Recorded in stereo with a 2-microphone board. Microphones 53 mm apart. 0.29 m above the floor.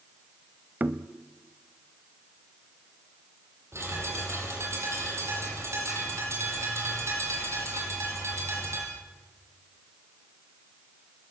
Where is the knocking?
35° right (ahead or behind), 0.8 m.